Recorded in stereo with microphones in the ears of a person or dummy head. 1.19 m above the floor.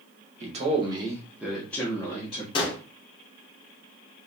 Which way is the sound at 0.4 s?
35° right (ahead or behind).